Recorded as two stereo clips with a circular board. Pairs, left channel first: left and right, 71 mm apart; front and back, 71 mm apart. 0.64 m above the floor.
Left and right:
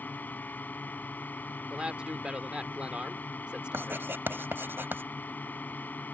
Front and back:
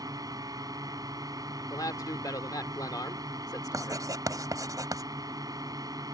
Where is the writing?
150° right.